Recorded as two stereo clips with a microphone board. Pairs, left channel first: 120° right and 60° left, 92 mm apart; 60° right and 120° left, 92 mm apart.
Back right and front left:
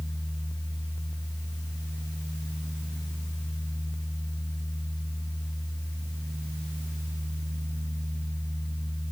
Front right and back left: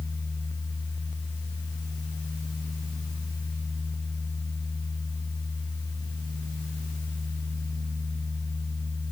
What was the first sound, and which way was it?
Only background noise.